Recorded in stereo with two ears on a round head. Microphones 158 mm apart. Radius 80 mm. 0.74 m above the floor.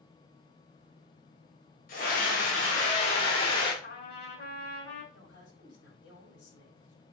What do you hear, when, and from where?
1.9 s a scream: 50° left (ahead or behind), 3 m; by 3.7 s 30° left (ahead or behind), 3 m
3.8 s a trumpet: 60° left (ahead or behind), 5 m
5.1 s a woman speaking: 80° left, 7 m